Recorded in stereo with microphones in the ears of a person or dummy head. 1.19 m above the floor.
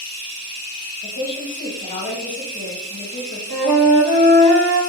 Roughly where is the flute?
Right.